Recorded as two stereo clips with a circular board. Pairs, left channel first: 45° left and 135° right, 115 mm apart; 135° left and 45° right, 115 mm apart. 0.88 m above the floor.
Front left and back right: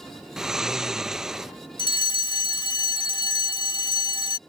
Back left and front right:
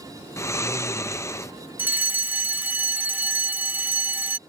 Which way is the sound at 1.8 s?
25° left.